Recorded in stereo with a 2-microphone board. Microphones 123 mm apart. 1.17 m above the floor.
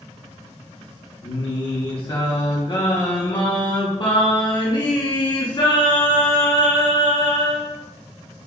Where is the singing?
40° left (ahead or behind), 0.7 m.